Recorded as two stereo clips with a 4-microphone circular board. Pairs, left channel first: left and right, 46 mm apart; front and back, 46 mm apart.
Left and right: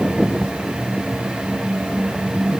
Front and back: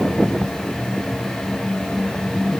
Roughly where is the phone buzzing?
No phone buzzing in this recording.